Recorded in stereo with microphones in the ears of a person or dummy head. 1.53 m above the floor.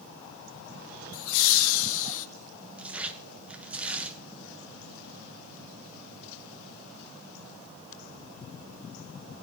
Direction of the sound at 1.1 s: 85° left.